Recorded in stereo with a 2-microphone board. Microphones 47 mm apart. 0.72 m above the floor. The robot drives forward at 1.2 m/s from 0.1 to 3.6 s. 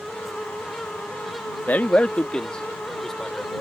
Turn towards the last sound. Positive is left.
turn(degrees=10)  # may be behind; listen again after turning